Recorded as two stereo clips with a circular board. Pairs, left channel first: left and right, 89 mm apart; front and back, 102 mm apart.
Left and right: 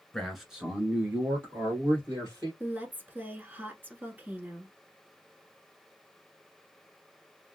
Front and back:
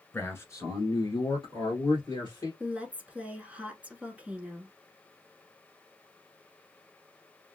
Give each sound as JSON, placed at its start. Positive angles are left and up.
{"t": 0.1, "sound": "a man speaking", "azimuth_deg": 20, "distance_m": 1.3}
{"t": 2.6, "sound": "a woman speaking", "azimuth_deg": -120, "distance_m": 1.1}